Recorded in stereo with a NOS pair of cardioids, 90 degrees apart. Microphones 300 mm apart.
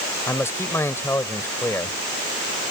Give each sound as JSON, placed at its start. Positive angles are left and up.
{"t": 0.3, "sound": "a man speaking", "azimuth_deg": 10}